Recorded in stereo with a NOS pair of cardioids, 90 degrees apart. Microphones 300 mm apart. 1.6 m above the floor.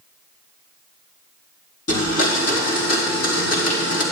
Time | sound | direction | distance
1.9 | a blender | 50° left | 3.5 m